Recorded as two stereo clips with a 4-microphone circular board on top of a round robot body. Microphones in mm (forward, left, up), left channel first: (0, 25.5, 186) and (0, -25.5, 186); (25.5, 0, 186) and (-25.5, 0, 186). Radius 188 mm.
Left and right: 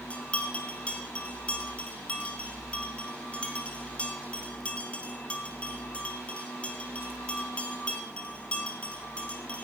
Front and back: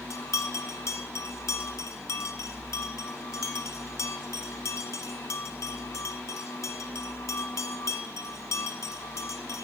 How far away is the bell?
About 0.9 m.